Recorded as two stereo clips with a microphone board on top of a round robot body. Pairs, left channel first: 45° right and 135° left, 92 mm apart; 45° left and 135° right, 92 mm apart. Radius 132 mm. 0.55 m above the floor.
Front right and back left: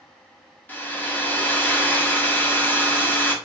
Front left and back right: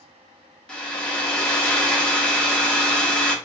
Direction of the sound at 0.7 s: 15° right.